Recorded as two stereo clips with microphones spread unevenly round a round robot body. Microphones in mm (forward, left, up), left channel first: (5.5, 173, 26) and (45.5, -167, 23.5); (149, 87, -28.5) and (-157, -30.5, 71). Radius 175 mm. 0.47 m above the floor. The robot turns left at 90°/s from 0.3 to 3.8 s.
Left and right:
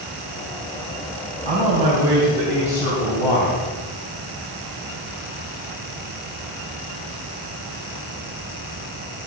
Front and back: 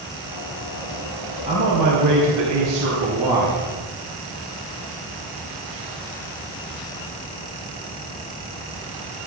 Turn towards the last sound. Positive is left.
turn(degrees=70)